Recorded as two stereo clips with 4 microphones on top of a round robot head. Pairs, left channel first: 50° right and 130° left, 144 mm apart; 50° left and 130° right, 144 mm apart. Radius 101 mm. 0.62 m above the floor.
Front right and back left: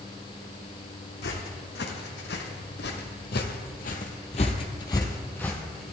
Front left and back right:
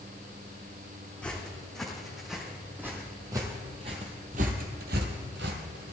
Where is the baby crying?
No baby crying in this recording.